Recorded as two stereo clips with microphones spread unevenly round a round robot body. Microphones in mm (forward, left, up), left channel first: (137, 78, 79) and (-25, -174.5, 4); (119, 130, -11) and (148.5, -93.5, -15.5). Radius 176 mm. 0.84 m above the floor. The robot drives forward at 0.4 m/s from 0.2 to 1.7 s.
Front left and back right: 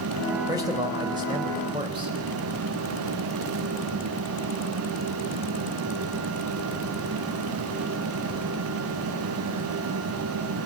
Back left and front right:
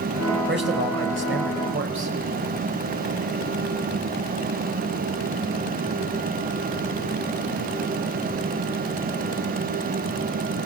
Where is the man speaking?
45° right, 4.5 m; by 2.1 s 50° right, 4 m.